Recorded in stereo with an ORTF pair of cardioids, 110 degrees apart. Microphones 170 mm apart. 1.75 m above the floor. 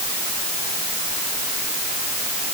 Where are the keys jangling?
No keys jangling in this recording.